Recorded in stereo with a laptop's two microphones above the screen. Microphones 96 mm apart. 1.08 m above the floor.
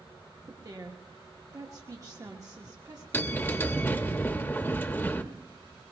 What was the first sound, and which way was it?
A woman speaking, 40° right (ahead or behind).